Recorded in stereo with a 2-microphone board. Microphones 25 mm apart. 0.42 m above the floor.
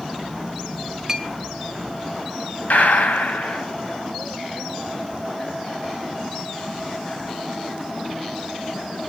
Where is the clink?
20° right (ahead or behind), 0.8 m.